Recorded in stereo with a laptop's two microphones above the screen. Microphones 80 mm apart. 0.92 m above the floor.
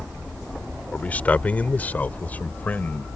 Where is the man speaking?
20° left (ahead or behind).